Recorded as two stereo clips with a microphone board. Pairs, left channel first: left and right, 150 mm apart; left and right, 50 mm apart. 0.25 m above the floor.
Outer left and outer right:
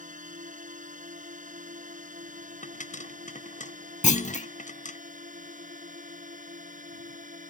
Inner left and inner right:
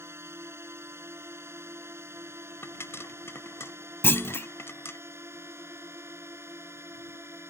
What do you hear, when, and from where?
0.0 s a drone: 60° right (ahead or behind)
2.6 s a pop: 55° left (ahead or behind)
4.0 s a clunk: 50° left (ahead or behind)